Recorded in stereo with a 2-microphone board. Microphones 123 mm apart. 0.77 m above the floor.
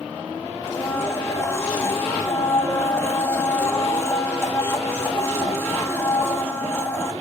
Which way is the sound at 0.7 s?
20° left (ahead or behind).